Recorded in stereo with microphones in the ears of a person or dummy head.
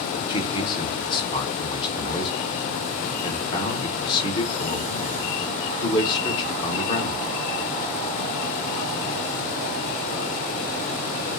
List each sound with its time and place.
0.3 s a man speaking: 25° left (ahead or behind), 0.9 m